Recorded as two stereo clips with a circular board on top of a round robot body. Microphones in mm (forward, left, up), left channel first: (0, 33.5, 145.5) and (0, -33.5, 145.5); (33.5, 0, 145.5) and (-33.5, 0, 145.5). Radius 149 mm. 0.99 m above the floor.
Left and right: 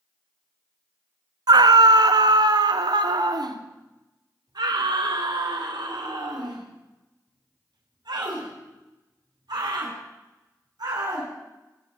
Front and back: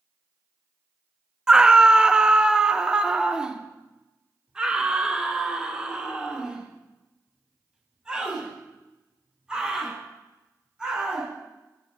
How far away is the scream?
About 0.9 m.